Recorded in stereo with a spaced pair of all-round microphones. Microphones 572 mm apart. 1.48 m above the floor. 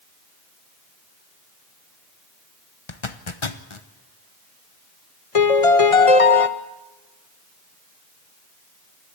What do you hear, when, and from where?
2.9 s a zipper: 55° left (ahead or behind), 1.1 m
5.3 s a piano: 70° left (ahead or behind), 1.0 m